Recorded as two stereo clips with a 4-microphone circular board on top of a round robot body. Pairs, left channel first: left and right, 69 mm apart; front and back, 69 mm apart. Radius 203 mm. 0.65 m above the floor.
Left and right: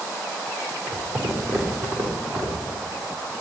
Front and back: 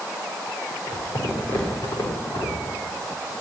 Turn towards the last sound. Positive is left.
turn(degrees=-65)